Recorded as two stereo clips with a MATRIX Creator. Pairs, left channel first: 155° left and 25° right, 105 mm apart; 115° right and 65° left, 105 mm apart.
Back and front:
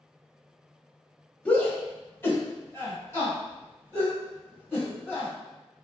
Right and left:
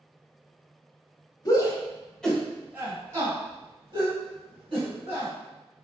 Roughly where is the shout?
Behind right.